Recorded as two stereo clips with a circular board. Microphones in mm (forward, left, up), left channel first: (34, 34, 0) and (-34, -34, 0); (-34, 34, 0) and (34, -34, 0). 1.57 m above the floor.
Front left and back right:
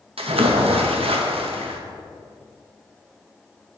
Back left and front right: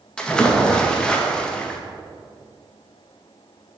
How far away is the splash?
About 0.6 m.